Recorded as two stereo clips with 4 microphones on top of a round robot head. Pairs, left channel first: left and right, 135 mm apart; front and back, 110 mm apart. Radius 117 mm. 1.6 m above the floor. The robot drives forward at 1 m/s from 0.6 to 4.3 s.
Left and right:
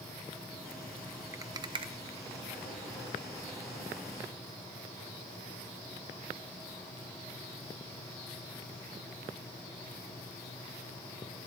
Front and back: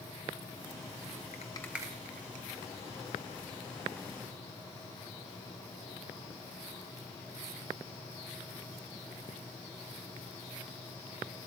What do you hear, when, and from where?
1.3 s a rattle: 25° right, 0.6 m; by 2.6 s 170° right, 1.0 m